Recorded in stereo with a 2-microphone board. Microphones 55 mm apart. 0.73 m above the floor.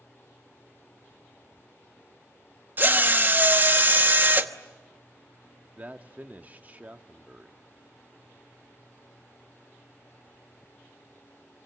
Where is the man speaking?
30° right (ahead or behind), 1.2 m.